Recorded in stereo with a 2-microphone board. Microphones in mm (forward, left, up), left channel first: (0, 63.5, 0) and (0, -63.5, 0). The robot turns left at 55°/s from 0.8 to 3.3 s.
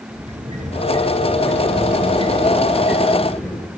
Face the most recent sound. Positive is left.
turn(degrees=170)